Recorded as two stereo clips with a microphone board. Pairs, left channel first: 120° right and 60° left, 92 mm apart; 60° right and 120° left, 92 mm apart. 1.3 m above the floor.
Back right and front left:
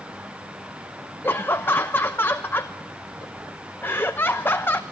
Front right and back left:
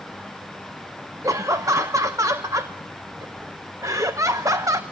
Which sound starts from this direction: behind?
Laughter, at 1.2 s.